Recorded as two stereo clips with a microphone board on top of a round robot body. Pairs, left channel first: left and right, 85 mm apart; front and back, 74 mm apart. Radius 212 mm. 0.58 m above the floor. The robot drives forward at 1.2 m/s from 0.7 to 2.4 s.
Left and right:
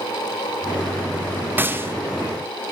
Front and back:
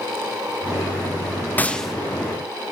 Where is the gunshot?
45° right, 1.1 m; by 1.9 s 100° right, 1.0 m.